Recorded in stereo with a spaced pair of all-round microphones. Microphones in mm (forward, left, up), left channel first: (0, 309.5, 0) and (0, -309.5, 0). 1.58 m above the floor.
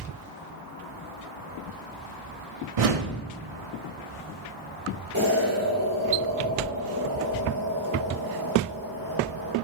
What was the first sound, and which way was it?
A whoosh, 60° right (ahead or behind).